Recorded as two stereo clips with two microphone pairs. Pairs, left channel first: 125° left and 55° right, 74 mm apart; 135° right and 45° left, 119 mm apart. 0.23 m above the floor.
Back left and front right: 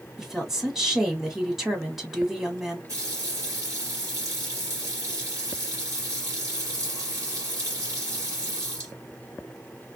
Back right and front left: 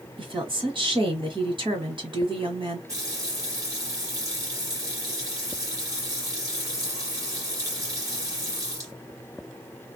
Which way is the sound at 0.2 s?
30° left.